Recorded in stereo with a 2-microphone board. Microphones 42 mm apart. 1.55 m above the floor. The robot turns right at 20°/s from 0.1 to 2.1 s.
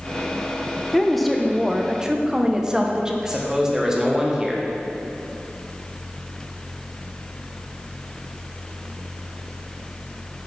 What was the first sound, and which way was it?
A woman speaking, 10° left (ahead or behind).